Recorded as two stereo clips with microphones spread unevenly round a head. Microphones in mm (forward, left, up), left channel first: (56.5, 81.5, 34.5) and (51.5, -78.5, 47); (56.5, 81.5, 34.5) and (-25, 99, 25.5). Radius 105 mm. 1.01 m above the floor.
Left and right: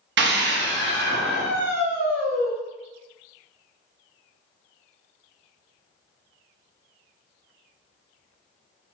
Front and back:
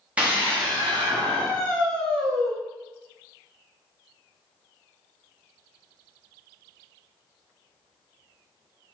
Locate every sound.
0.2 s a scream: 110° right, 1.0 m; by 2.5 s 130° right, 2 m